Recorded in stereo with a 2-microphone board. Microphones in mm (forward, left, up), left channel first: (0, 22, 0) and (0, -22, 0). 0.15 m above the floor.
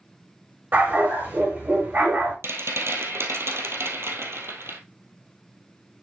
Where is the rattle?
70° right (ahead or behind), 2 m.